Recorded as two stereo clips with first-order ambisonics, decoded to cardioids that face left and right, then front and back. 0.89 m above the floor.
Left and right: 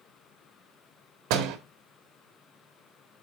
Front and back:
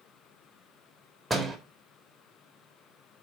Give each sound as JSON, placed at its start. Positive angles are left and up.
{"t": 1.3, "sound": "a door slam", "azimuth_deg": -90, "distance_m": 1.4}